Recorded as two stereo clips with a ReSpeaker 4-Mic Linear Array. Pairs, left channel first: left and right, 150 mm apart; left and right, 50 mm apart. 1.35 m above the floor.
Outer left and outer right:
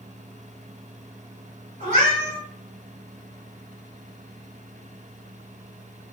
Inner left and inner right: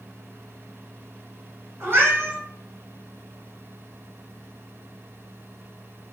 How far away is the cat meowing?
About 1.8 m.